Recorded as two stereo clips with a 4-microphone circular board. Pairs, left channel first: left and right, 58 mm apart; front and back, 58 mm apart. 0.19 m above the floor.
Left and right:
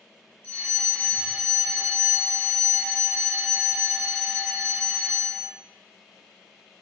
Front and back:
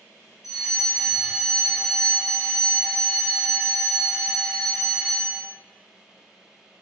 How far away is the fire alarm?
About 2 m.